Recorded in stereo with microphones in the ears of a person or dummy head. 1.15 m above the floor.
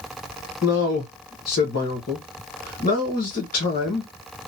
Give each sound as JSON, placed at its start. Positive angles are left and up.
{"t": 0.6, "sound": "a man speaking", "side_deg": 50, "distance_m": 1.1}